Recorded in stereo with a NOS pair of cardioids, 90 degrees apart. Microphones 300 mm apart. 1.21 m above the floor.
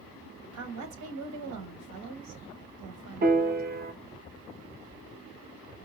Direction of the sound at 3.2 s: 30° right.